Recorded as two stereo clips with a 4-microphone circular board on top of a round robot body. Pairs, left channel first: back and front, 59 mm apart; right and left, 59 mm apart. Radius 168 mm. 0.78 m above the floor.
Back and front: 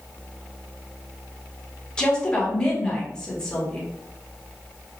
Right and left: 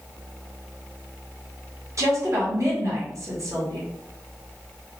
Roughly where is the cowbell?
No cowbell in this recording.